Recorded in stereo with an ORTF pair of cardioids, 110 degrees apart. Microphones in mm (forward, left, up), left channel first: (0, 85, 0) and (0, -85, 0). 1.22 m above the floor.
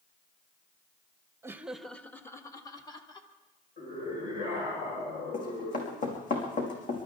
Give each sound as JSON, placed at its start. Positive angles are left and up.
{"t": 1.4, "sound": "laughter", "azimuth_deg": -15, "distance_m": 1.0}
{"t": 3.8, "sound": "a scream", "azimuth_deg": 50, "distance_m": 5.5}
{"t": 5.3, "sound": "running footsteps", "azimuth_deg": 50, "distance_m": 5.0}